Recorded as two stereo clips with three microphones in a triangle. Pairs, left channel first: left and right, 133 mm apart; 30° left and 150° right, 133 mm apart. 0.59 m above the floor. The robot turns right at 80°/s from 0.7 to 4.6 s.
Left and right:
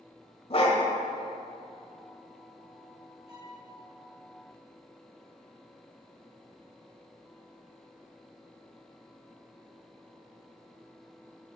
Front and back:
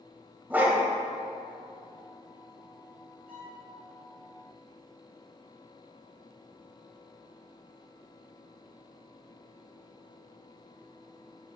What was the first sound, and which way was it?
A dog barking, 135° left.